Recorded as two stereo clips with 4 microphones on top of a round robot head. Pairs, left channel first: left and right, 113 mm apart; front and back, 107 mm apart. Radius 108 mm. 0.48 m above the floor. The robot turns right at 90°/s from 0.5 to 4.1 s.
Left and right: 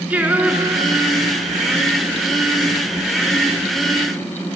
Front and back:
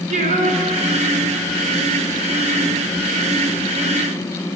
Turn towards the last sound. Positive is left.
turn(degrees=155)